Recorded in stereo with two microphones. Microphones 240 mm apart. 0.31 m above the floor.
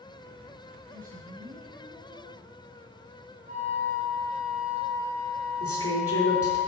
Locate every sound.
0.9 s a woman speaking: 30° right (ahead or behind), 4.5 m
3.5 s a flute: 35° right (ahead or behind), 4 m
5.6 s a woman speaking: 70° left (ahead or behind), 4 m